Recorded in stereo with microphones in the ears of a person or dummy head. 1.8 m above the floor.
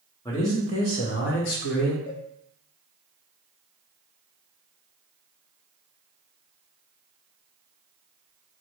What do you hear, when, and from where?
0.2 s a man speaking: 15° left (ahead or behind), 1.2 m; by 2.0 s 65° left (ahead or behind), 1.0 m
2.1 s a cowbell: 35° left (ahead or behind), 0.7 m